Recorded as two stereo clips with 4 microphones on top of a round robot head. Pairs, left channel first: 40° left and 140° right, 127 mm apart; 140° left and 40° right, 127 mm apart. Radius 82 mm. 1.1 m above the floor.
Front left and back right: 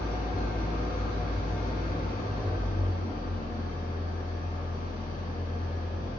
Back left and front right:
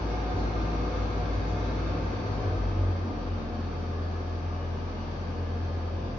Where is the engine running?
40° left, 0.8 m.